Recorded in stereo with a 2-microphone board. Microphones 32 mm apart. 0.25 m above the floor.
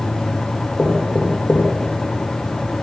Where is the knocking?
20° left (ahead or behind), 6.5 m.